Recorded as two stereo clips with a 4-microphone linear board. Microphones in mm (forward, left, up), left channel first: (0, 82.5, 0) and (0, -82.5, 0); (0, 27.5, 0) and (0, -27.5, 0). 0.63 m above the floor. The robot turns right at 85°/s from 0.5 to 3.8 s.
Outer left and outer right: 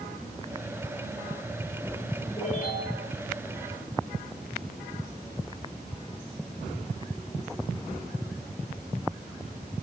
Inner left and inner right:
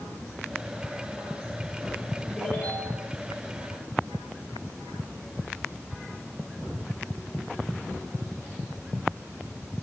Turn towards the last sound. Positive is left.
turn(degrees=150)